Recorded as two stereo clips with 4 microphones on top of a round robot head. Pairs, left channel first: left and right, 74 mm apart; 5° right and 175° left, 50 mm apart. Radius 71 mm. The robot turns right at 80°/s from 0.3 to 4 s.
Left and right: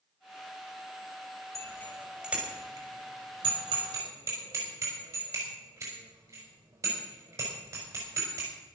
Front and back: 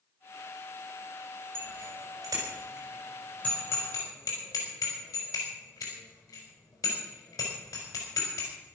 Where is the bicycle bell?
130° left, 5.5 m; by 8.5 s 35° right, 5.5 m.